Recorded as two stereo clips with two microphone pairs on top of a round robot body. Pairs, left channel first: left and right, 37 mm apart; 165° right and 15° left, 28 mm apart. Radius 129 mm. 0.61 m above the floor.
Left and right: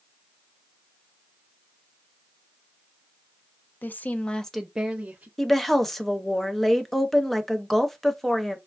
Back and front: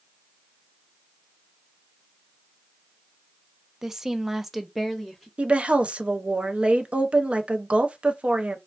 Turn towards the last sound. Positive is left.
turn(degrees=-10)